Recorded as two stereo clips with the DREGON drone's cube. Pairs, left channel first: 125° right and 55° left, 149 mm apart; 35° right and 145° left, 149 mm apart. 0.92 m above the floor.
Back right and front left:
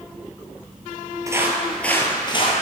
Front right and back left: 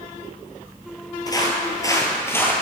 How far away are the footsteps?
About 1.0 m.